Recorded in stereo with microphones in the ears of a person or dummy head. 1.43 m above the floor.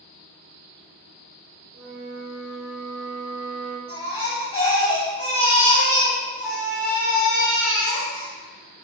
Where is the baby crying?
25° left (ahead or behind), 1.2 m.